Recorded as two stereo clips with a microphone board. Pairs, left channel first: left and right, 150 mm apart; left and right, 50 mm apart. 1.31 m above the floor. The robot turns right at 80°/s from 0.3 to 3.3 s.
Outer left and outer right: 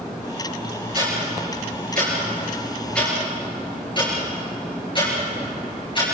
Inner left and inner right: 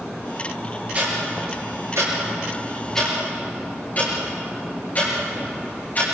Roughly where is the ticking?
Right.